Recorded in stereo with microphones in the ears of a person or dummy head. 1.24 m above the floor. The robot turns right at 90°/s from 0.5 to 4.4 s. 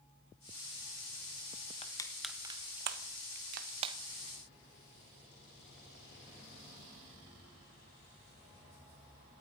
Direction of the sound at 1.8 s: 35° left (ahead or behind).